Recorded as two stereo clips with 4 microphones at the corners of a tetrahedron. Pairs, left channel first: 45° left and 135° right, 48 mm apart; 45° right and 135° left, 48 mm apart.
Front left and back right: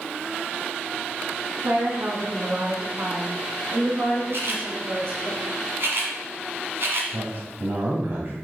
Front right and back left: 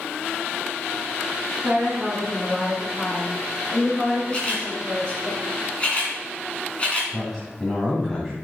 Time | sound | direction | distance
1.6 | a woman speaking | 150° right | 3 m
4.3 | a camera shutter | 110° right | 2 m
7.1 | a man speaking | 125° right | 1.9 m